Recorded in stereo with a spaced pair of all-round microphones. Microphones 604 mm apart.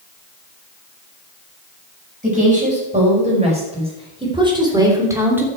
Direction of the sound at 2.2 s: 10° right (ahead or behind).